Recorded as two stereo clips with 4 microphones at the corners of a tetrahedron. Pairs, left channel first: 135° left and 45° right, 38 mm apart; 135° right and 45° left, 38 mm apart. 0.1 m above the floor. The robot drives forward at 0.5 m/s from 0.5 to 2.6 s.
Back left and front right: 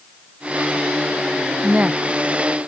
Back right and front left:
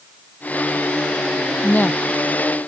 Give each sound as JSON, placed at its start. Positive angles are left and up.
{"t": 1.6, "sound": "a woman speaking", "azimuth_deg": -100}